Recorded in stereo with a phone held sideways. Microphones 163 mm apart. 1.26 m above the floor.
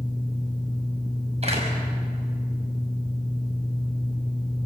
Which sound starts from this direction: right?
A door slam, at 1.4 s.